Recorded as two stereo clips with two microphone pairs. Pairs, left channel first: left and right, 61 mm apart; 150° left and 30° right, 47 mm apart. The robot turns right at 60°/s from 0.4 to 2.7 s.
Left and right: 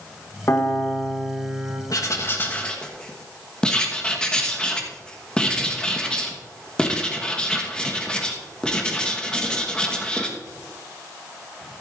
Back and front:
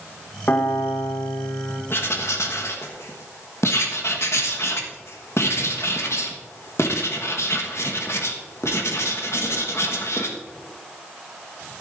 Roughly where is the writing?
Behind left.